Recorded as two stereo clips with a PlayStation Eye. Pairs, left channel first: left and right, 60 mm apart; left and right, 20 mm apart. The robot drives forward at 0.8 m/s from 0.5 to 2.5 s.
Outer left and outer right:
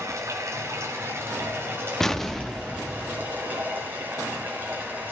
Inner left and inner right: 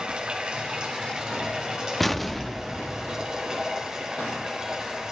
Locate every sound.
0.0 s running water: 50° right (ahead or behind), 2.5 m; by 5.1 s 30° right (ahead or behind), 3.5 m
2.0 s an explosion: 5° left (ahead or behind), 0.6 m